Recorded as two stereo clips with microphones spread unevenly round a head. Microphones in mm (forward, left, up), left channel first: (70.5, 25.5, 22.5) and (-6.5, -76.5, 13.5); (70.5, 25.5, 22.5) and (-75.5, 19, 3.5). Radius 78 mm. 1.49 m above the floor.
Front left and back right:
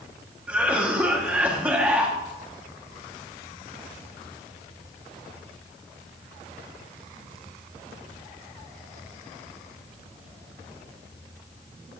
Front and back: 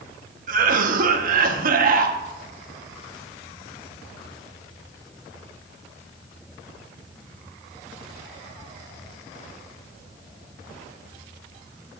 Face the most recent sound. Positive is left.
turn(degrees=150)